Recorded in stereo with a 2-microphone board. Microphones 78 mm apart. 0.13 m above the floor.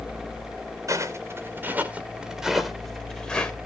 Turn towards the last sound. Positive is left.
turn(degrees=15)  # may be behind; listen again after turning